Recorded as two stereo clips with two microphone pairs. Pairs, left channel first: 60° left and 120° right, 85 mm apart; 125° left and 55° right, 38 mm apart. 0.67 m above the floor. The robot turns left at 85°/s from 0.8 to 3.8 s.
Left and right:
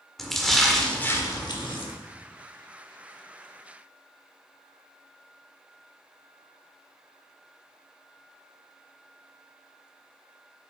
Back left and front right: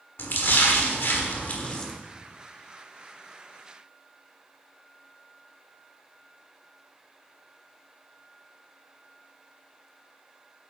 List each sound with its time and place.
0.2 s a splash: 145° left, 1.3 m; by 1.9 s 50° left, 1.3 m